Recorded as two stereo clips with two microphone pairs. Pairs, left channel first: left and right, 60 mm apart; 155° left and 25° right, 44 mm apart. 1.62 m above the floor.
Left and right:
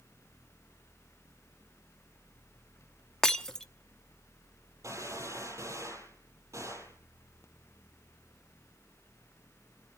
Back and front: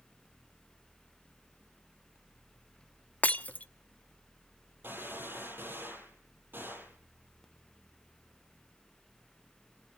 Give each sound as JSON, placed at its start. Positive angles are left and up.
{"t": 3.2, "sound": "breaking glass", "azimuth_deg": 160, "distance_m": 0.8}
{"t": 4.8, "sound": "a gunshot", "azimuth_deg": -60, "distance_m": 9.0}